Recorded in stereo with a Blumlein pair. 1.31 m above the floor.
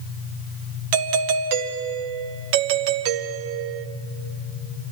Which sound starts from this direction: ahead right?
A doorbell, at 0.9 s.